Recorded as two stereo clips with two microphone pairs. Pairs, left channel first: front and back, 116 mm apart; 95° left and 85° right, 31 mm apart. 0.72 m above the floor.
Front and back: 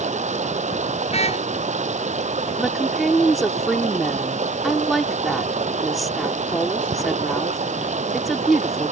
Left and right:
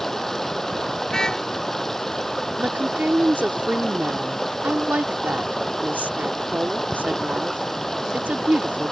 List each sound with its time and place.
0.0 s running water: 175° left
1.1 s a car horn: 30° left
2.6 s a woman speaking: 90° right